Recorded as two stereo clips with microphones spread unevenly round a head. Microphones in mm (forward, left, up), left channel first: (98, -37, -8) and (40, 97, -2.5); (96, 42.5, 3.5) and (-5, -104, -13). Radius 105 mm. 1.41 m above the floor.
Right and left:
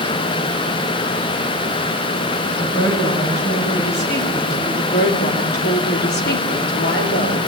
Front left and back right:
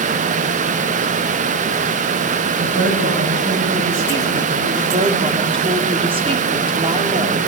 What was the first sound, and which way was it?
A woman speaking, 120° right.